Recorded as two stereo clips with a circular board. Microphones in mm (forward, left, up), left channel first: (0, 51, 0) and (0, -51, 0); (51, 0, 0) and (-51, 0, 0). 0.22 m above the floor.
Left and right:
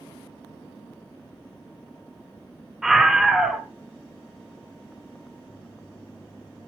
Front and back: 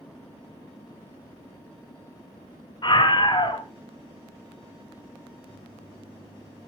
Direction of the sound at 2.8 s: 5° right.